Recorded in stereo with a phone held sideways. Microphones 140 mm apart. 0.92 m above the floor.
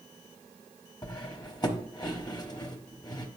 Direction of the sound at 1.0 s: 30° left (ahead or behind).